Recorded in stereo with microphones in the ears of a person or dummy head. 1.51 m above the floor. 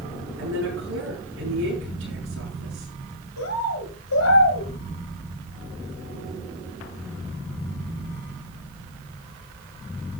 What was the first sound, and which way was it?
A woman speaking, 80° right.